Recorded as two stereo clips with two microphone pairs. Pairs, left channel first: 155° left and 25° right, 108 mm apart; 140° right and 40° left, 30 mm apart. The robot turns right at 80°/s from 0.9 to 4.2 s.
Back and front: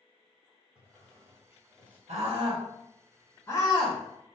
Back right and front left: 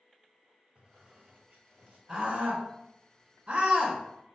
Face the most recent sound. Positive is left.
turn(degrees=150)